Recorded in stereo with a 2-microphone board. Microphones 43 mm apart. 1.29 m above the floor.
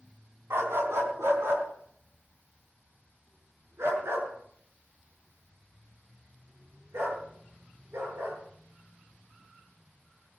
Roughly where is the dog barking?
Right.